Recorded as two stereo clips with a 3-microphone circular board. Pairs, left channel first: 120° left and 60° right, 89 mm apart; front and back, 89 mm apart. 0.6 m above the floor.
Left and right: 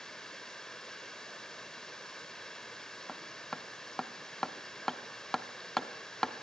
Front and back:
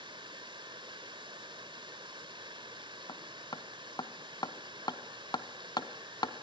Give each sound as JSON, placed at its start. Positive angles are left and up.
{"t": 0.0, "sound": "running water", "azimuth_deg": -155, "distance_m": 1.5}
{"t": 3.1, "sound": "hammering", "azimuth_deg": 35, "distance_m": 1.1}